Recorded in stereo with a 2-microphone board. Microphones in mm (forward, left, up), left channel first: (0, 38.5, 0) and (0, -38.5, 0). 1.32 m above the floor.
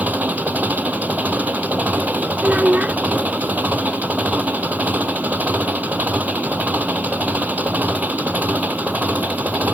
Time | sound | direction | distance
0.0 | an engine running | 20° right (ahead or behind) | ?
2.4 | a child speaking | 15° right (ahead or behind) | ?